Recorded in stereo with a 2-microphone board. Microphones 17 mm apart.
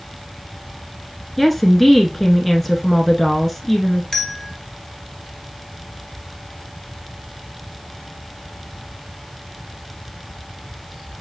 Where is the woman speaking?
10° left (ahead or behind), 1.2 m.